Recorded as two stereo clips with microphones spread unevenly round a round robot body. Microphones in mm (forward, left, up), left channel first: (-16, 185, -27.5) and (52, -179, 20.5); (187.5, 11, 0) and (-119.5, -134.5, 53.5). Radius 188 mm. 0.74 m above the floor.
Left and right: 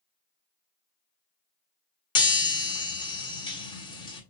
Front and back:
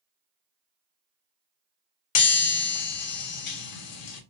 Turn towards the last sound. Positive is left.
turn(degrees=25)